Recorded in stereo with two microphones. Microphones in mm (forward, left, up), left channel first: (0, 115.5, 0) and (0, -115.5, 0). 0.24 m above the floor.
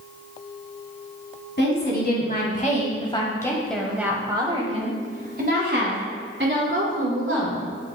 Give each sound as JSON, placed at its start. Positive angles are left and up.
{"t": 1.6, "sound": "a woman speaking", "side_deg": 50, "distance_m": 1.5}